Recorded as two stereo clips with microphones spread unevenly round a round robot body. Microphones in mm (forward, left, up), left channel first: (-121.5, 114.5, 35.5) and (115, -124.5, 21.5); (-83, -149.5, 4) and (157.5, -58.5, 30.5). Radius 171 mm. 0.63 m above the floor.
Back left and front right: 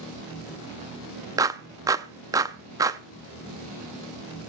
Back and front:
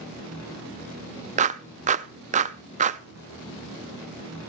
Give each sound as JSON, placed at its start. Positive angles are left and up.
{"t": 1.4, "sound": "a clap", "azimuth_deg": 5, "distance_m": 0.5}